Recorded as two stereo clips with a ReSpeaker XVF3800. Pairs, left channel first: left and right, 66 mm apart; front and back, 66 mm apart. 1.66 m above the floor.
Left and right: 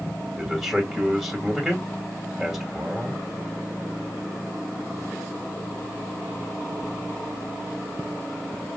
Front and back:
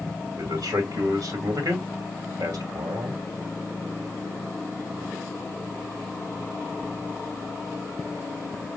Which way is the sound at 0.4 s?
175° right.